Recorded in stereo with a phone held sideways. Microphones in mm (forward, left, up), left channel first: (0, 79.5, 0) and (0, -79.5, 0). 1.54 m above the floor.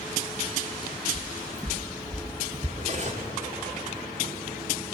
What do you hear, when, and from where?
1.1 s footsteps: 20° right (ahead or behind), 2 m; by 2.7 s 25° right (ahead or behind), 1.7 m
2.8 s cutlery clinking: 45° right (ahead or behind), 2.5 m